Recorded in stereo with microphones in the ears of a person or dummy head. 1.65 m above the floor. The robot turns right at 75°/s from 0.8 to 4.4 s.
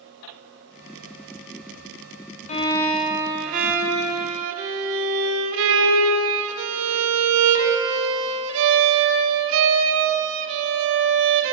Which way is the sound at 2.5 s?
145° left.